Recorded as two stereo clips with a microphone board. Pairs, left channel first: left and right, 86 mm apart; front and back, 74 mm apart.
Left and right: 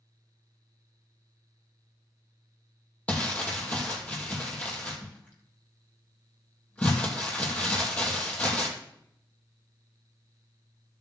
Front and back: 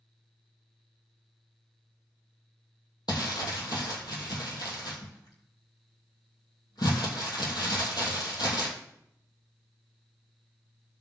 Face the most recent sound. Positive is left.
turn(degrees=15)